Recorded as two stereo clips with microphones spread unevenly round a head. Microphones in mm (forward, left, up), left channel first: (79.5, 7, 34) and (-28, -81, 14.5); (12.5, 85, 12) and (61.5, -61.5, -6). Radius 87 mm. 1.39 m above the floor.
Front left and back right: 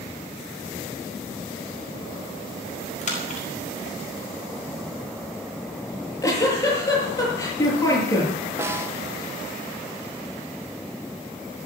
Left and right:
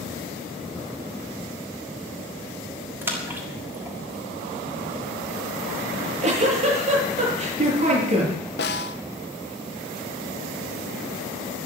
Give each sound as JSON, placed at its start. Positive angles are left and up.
{"t": 3.0, "sound": "a splash", "azimuth_deg": 5, "distance_m": 6.5}
{"t": 5.9, "sound": "a giggle", "azimuth_deg": -30, "distance_m": 8.0}
{"t": 8.6, "sound": "a snare drum", "azimuth_deg": 145, "distance_m": 1.1}